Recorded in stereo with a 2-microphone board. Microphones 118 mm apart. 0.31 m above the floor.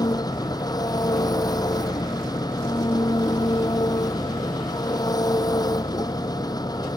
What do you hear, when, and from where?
0.0 s an engine running: 35° left (ahead or behind)